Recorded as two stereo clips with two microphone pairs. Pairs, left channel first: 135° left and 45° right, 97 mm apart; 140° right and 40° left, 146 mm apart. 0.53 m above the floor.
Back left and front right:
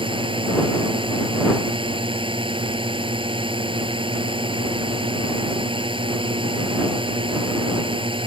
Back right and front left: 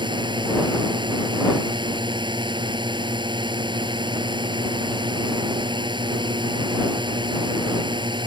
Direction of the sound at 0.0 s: 15° right.